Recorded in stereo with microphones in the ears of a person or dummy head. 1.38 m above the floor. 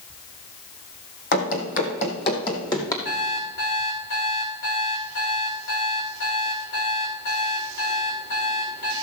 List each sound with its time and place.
1.3 s running footsteps: 50° left (ahead or behind), 2.5 m; by 3.0 s 20° left (ahead or behind), 2.5 m
3.0 s an alarm clock: 50° left (ahead or behind), 3 m